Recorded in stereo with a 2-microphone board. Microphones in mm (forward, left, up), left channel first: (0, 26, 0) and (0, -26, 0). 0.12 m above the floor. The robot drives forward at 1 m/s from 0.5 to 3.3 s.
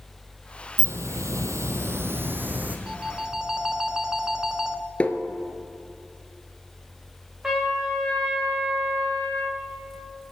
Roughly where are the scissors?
I don't hear scissors.